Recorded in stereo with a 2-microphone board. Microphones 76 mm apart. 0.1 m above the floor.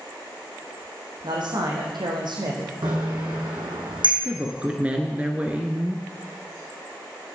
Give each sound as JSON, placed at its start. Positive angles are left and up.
{"t": 1.2, "sound": "a man speaking", "side_deg": -65, "distance_m": 4.5}
{"t": 2.8, "sound": "a bicycle bell", "side_deg": -75, "distance_m": 4.0}
{"t": 4.2, "sound": "a woman speaking", "side_deg": -15, "distance_m": 1.3}